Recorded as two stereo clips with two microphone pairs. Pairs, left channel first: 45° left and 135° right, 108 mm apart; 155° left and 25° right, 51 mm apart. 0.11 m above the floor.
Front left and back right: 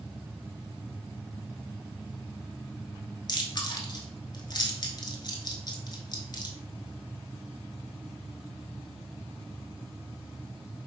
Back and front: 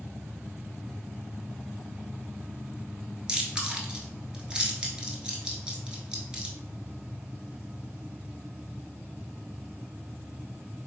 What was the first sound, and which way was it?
Chewing, 45° left.